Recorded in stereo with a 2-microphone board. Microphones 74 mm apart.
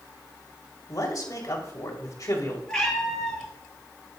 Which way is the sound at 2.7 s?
10° left (ahead or behind).